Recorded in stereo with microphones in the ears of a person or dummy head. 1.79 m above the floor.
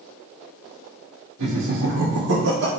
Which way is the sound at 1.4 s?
70° right (ahead or behind).